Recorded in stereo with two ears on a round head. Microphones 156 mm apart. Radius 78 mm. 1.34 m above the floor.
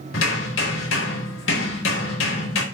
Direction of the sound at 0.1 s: 85° left.